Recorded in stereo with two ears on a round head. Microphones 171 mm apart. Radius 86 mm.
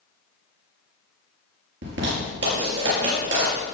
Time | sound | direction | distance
1.8 | a zipper | 65° right (ahead or behind) | 6 m